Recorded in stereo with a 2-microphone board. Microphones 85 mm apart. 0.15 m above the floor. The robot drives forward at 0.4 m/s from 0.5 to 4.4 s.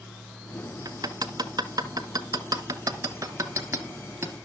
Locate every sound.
0.8 s hammering: 45° right (ahead or behind), 0.9 m; by 4.3 s 30° right (ahead or behind), 1.4 m